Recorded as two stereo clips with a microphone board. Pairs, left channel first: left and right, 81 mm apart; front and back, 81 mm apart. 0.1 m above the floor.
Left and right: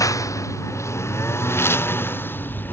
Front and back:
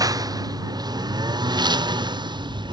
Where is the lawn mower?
135° left; by 2.7 s 155° left.